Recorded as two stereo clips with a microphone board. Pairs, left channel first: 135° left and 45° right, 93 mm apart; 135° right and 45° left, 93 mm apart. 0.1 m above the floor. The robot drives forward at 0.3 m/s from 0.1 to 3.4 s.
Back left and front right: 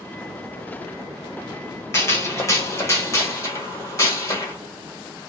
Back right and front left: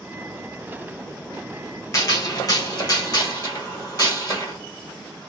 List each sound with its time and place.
1.9 s a gunshot: 175° right, 1.2 m